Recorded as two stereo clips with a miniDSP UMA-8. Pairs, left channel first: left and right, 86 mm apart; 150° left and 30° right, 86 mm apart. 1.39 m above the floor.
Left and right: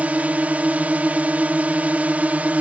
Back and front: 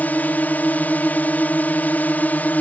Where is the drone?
150° right.